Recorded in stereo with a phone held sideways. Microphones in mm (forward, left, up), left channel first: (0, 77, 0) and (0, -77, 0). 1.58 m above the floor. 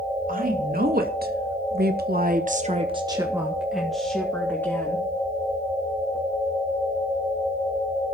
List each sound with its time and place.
0.3 s a woman speaking: 65° right (ahead or behind), 3 m; by 5.1 s 15° left (ahead or behind), 3 m